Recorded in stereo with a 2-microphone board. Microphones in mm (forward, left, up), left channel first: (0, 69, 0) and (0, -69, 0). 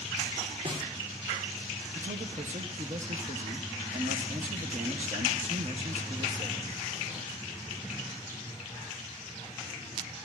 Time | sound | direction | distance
0.7 | a snare drum | 45° right (ahead or behind) | 2.5 m
1.9 | a man speaking | 60° right (ahead or behind) | 1.4 m